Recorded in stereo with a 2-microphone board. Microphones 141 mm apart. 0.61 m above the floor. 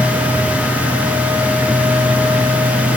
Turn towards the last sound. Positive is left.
No sound to turn to.